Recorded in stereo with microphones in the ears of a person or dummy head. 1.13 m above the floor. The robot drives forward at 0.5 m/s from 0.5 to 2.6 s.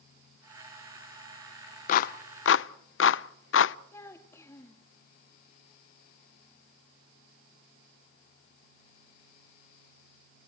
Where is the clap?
45° left (ahead or behind), 0.6 m; by 3.8 s 55° left (ahead or behind), 0.5 m.